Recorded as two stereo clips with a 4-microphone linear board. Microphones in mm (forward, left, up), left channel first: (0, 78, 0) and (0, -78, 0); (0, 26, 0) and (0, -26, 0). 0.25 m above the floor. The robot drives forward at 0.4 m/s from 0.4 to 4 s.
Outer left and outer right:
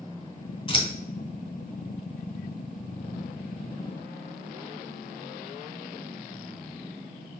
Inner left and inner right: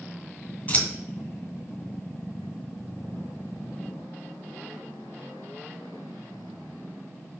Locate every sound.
0.7 s scissors: 30° left (ahead or behind), 1.9 m